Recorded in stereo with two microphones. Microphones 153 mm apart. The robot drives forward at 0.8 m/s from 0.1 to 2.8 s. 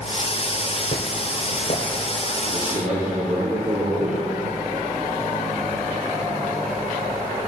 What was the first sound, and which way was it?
Footsteps, 60° left (ahead or behind).